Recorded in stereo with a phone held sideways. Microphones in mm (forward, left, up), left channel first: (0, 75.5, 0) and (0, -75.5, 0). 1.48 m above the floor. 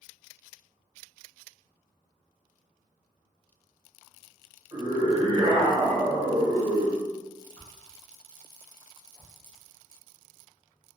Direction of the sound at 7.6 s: 15° left (ahead or behind).